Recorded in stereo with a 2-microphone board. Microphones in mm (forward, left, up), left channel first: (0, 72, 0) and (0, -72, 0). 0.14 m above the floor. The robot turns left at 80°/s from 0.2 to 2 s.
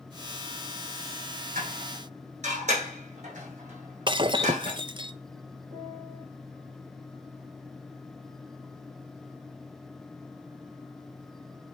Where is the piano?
45° right (ahead or behind), 5.5 m.